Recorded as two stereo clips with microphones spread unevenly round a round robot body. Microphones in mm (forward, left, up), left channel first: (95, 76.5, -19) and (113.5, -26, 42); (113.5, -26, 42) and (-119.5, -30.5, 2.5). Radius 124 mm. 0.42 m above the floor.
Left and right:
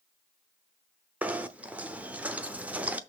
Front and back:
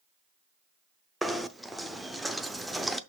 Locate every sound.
1.2 s knocking: 120° left, 0.6 m